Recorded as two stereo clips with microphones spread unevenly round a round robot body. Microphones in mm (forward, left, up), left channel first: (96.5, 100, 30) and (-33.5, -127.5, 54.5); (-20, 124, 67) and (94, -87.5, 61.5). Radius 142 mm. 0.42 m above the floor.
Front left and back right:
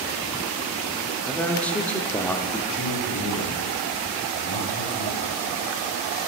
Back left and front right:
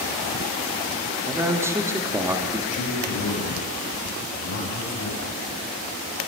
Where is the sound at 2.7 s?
125° left, 2.5 m.